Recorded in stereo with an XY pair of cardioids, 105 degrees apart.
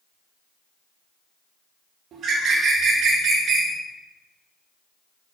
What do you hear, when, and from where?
2.1 s a bird: 70° right, 1.6 m